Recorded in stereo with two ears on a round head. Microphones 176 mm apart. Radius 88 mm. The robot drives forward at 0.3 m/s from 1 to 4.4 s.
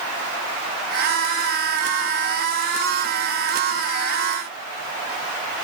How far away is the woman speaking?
I don't hear a woman speaking.